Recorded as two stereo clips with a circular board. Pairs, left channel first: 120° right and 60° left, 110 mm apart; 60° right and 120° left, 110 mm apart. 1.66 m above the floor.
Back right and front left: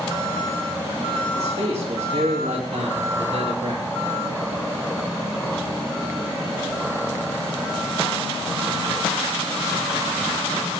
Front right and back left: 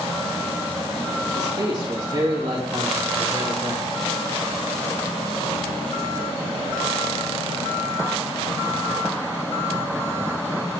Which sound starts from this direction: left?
A man speaking, at 1.3 s.